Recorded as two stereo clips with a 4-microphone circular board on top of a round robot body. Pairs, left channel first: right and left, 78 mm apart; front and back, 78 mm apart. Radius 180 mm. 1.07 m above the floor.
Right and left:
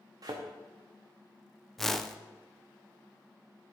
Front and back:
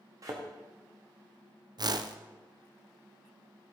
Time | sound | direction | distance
0.2 | a thud | 130° left | 0.7 m
1.8 | a whoosh | 175° right | 0.7 m